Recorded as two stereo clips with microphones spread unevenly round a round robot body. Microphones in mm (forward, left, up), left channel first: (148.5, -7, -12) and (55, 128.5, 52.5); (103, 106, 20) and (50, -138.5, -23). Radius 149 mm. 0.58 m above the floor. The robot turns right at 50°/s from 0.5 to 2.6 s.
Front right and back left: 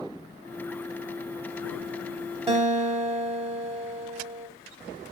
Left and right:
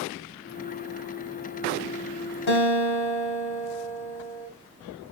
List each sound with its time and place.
2.5 s a guitar: 60° left, 2 m; by 4.5 s 70° left, 2 m